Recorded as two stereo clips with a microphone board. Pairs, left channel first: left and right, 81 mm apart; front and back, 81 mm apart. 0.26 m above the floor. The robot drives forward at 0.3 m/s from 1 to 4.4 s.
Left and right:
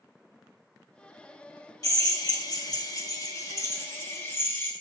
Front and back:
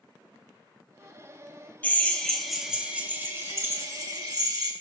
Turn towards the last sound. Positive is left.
turn(degrees=150)